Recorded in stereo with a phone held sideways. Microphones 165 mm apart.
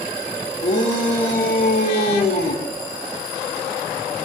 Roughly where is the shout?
Left.